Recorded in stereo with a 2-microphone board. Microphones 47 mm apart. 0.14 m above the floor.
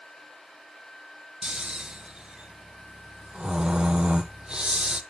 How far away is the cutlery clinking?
No cutlery clinking in this recording.